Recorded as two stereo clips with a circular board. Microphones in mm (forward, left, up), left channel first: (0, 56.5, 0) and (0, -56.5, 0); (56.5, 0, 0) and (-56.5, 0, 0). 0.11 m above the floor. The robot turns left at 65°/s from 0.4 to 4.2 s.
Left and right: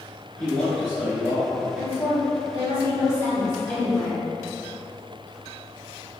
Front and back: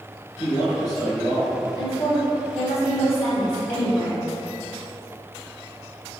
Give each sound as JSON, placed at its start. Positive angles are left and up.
{"t": 0.4, "sound": "a man speaking", "azimuth_deg": 30, "distance_m": 1.4}
{"t": 1.8, "sound": "a woman speaking", "azimuth_deg": 175, "distance_m": 1.5}